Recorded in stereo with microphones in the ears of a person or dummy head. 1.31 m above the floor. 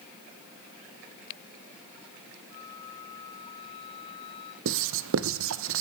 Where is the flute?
40° left (ahead or behind), 5.5 m.